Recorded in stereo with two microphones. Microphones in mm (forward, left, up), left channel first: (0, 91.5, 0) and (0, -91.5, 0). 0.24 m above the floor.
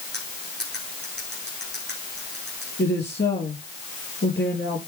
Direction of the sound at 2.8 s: 65° left (ahead or behind).